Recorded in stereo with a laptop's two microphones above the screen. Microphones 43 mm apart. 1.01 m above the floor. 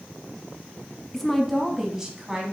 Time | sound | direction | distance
1.1 | a woman speaking | 10° left (ahead or behind) | 1.2 m